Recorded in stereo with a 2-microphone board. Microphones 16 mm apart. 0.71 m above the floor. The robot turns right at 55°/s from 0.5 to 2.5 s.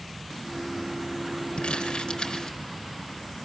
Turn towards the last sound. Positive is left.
turn(degrees=50)  # may be behind; listen again after turning